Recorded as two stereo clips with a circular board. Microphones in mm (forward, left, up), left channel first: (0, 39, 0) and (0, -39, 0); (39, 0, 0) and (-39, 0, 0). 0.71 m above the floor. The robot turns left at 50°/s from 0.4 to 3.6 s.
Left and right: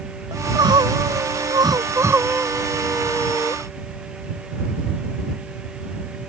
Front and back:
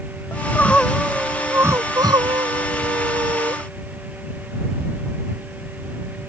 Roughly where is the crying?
Ahead right.